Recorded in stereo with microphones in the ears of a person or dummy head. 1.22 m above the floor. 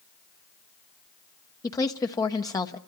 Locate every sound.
1.6 s a woman speaking: 20° left (ahead or behind), 0.9 m